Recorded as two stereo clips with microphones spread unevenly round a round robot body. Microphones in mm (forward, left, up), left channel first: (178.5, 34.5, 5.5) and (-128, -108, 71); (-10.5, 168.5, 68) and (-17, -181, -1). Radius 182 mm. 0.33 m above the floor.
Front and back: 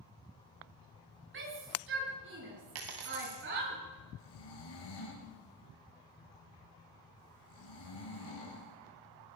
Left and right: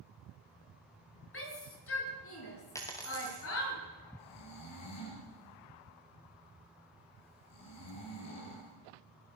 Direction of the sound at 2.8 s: 170° left.